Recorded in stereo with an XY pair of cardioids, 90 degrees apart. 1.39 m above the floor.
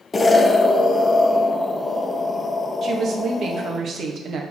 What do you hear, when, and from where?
0.1 s an explosion: 35° left, 0.8 m
2.8 s a woman speaking: 60° right, 1.4 m